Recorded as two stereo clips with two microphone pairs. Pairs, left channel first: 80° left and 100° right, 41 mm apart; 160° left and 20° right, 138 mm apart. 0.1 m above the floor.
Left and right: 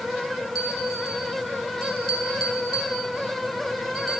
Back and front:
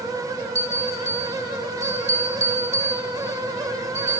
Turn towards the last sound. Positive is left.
turn(degrees=-5)